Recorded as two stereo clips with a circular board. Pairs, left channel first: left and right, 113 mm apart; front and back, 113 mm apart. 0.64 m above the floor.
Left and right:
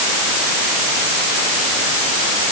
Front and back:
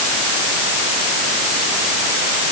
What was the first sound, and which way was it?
Only background noise.